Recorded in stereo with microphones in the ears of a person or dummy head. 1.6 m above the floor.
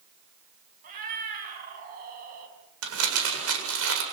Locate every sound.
0.8 s a cat meowing: 45° right (ahead or behind), 5.5 m
2.8 s crumpling: 75° right (ahead or behind), 7.5 m